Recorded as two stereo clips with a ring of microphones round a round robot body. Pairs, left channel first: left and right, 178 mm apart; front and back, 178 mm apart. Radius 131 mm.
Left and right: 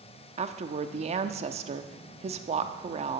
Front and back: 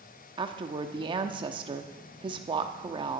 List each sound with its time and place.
0.4 s a woman speaking: 125° right, 0.9 m